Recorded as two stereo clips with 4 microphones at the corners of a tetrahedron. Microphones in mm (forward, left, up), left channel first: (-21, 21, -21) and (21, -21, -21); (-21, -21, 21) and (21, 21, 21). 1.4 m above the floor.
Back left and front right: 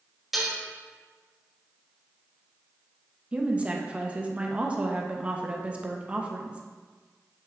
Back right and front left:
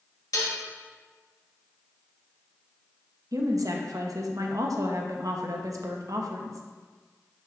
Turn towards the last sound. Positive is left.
turn(degrees=25)